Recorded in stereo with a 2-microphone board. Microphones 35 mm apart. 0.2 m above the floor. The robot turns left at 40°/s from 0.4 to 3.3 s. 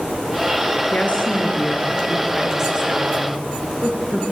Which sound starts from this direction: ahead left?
A woman speaking, at 0.9 s.